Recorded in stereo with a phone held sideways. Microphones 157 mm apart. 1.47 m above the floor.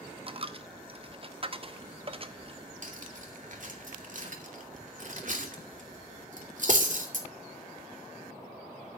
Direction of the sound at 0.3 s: 40° right (ahead or behind).